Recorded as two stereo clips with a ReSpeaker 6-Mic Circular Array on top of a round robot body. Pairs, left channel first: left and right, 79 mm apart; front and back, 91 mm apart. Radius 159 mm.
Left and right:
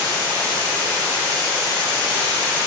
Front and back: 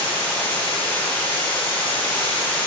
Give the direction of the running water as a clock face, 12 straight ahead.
11 o'clock.